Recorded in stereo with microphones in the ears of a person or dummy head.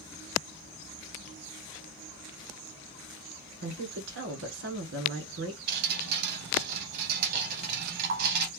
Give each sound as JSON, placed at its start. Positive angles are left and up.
{"t": 3.6, "sound": "a woman speaking", "side_deg": -85, "distance_m": 1.4}
{"t": 5.7, "sound": "dripping", "side_deg": -60, "distance_m": 0.7}